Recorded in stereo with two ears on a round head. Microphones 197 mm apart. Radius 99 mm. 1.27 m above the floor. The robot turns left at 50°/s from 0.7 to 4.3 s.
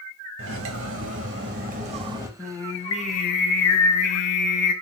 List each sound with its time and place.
0.4 s cutlery clinking: 85° right, 1.0 m; by 2.3 s 165° right, 1.0 m
2.4 s singing: straight behind, 0.7 m; by 4.7 s 85° left, 0.7 m